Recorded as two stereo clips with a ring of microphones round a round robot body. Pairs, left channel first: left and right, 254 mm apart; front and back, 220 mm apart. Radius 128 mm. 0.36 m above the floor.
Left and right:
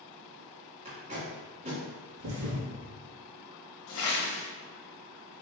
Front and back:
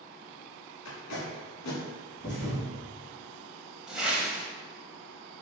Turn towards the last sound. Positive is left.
turn(degrees=95)